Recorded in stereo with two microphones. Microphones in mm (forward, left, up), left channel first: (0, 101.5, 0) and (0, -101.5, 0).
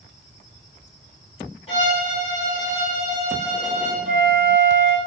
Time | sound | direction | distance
1.7 | a violin | 30° left (ahead or behind) | 3.5 m
4.0 | a flute | 55° right (ahead or behind) | 3.5 m